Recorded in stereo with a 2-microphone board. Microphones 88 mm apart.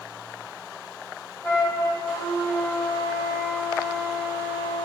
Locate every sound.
1.4 s a flute: 35° left (ahead or behind), 2.0 m